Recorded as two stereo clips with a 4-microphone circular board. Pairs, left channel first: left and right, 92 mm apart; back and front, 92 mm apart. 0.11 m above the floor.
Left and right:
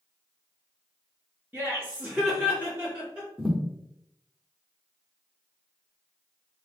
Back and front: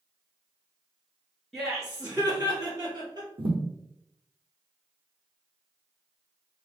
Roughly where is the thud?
Ahead.